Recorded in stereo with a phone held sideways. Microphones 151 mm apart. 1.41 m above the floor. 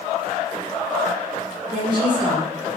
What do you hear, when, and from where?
1.7 s a woman speaking: 30° right (ahead or behind), 1.6 m